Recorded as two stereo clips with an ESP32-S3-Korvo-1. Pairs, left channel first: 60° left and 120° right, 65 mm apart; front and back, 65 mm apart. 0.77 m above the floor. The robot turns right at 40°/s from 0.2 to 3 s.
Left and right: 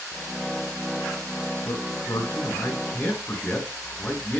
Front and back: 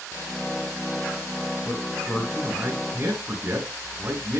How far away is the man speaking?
About 7.5 m.